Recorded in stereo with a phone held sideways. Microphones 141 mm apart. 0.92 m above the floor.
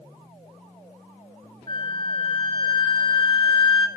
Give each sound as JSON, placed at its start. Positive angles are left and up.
{"t": 1.7, "sound": "a flute", "side_deg": 35, "distance_m": 0.6}